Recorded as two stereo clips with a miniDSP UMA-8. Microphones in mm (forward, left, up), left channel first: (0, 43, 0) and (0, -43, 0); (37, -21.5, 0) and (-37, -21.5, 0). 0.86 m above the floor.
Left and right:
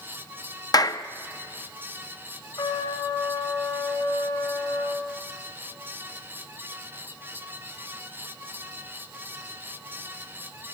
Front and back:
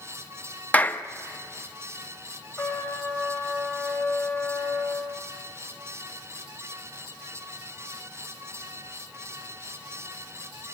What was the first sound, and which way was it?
A clap, 65° left.